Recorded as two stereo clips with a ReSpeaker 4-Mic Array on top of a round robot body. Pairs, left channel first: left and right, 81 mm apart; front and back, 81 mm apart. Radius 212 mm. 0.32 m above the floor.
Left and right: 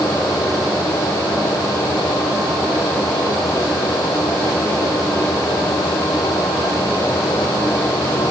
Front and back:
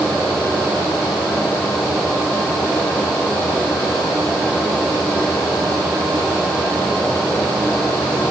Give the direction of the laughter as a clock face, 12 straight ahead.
I don't hear laughter.